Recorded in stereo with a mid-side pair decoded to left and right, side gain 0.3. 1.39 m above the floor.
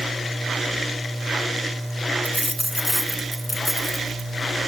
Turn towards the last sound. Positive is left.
turn(degrees=10)